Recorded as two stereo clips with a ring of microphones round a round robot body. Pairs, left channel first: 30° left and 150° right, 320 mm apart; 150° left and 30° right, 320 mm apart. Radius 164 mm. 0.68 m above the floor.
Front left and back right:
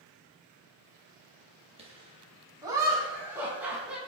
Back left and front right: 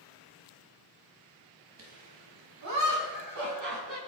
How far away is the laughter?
About 4.5 m.